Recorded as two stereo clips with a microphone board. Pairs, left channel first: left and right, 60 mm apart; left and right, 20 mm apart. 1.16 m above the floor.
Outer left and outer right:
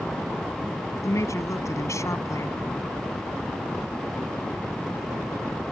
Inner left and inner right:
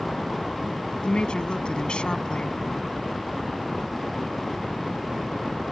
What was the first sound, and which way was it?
A woman speaking, 60° left (ahead or behind).